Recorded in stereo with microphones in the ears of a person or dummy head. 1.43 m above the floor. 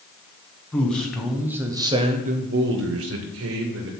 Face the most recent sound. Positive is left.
turn(degrees=-70)  # may be behind; listen again after turning